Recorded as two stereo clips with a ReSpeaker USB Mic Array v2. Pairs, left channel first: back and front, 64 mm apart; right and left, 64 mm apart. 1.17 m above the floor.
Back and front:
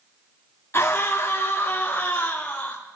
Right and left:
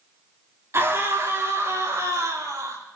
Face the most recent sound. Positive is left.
turn(degrees=110)